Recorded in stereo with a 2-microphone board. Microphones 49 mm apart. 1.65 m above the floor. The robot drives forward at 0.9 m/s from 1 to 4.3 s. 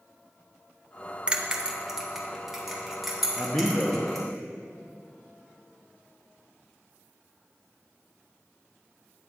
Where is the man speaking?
50° left (ahead or behind), 1.0 m; by 4.0 s 30° left (ahead or behind), 1.4 m.